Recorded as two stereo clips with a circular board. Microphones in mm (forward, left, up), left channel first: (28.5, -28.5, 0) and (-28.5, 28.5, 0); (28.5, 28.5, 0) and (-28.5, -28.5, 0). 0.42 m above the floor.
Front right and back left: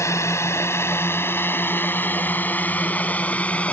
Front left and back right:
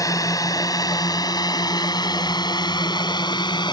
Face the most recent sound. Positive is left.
turn(degrees=30)